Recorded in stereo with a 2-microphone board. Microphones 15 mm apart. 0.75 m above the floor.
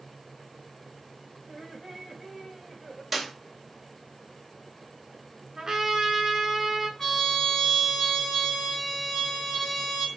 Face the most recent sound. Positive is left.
turn(degrees=25)  # may be behind; listen again after turning